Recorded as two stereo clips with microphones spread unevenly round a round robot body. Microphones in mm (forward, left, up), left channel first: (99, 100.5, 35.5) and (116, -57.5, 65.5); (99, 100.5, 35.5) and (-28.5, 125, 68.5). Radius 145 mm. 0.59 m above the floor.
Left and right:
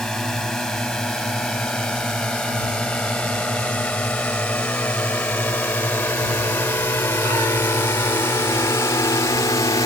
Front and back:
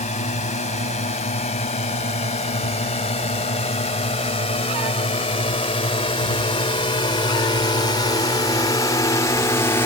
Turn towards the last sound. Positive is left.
turn(degrees=40)